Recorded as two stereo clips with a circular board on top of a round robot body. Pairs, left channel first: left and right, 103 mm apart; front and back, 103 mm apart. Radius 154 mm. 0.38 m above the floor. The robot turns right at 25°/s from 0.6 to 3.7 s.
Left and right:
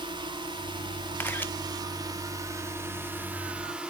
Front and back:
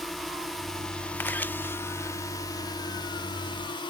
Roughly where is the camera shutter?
Ahead left.